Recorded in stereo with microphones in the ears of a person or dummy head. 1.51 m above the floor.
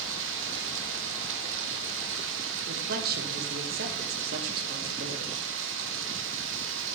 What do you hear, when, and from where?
0.0 s running water: 75° right (ahead or behind), 0.9 m
2.7 s a man speaking: 55° right (ahead or behind), 1.3 m